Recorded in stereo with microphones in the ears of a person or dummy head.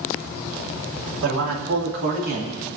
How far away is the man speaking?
About 2 m.